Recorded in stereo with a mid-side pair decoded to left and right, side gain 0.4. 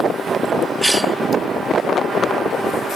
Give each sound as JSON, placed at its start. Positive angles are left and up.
{"t": 0.8, "sound": "a cough", "azimuth_deg": -15}